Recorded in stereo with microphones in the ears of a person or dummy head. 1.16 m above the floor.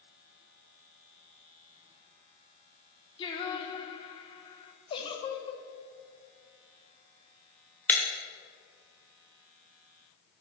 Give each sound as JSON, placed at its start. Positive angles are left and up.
{"t": 3.2, "sound": "singing", "side_deg": 30, "distance_m": 1.2}
{"t": 4.9, "sound": "a giggle", "side_deg": 30, "distance_m": 1.0}
{"t": 7.9, "sound": "breaking glass", "side_deg": 10, "distance_m": 1.3}